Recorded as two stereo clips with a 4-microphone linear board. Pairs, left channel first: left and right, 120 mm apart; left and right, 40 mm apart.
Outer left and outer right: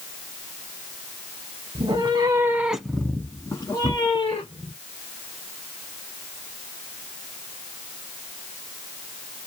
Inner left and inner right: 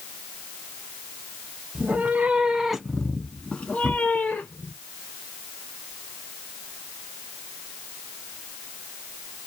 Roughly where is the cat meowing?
Right.